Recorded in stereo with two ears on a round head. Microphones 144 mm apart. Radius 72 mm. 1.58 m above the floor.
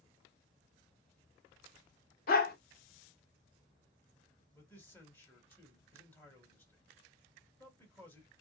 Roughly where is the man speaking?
Centre.